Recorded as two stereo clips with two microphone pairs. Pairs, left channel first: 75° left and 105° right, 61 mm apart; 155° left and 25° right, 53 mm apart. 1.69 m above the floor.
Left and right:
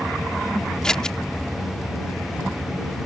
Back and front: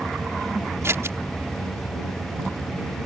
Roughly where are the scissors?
Ahead.